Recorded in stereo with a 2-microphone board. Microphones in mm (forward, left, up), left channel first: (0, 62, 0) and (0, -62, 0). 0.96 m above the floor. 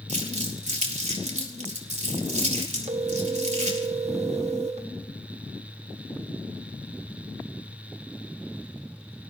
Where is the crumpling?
70° right (ahead or behind), 3 m.